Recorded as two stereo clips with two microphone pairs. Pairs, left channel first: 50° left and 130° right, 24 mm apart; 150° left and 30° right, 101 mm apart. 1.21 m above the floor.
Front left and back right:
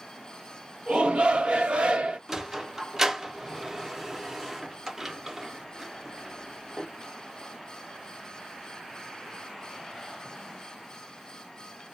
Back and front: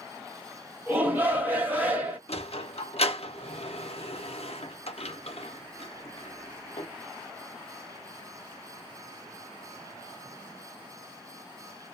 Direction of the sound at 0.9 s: 100° right.